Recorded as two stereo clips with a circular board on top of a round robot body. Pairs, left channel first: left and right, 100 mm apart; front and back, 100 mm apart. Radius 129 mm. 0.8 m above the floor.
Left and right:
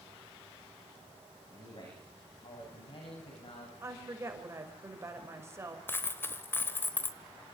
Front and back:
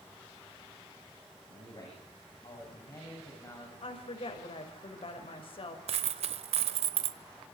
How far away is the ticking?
I don't hear ticking.